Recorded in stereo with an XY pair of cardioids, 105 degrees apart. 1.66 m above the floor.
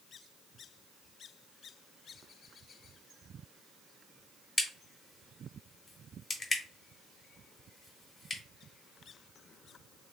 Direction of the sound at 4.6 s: 40° left.